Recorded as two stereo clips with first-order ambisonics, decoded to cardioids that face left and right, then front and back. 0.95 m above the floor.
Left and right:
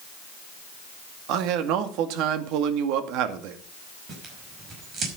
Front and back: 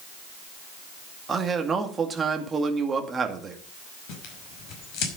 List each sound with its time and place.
1.3 s a man speaking: 110° right, 2 m
4.1 s tearing paper: 30° right, 5 m